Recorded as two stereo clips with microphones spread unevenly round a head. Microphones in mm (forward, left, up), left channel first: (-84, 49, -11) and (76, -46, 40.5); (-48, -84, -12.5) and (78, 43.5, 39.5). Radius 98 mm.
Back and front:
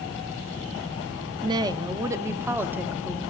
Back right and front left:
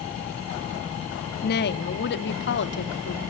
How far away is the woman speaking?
About 1.5 m.